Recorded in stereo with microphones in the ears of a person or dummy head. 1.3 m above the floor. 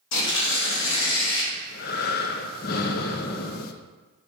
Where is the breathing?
45° left (ahead or behind), 0.6 m.